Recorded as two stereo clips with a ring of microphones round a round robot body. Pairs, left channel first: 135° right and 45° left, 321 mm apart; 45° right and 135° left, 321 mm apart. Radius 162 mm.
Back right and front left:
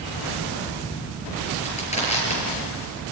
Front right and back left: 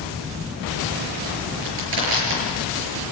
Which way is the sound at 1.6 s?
155° left.